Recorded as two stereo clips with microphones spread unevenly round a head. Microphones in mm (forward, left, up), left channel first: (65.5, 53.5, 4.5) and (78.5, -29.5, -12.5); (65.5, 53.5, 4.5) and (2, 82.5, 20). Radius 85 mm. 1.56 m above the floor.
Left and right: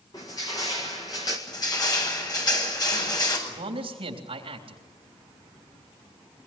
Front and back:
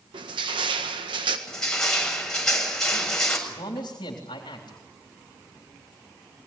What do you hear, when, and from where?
0.1 s crushing: 170° left, 1.7 m
1.5 s crushing: 60° left, 7 m
3.5 s a man speaking: 75° right, 3.5 m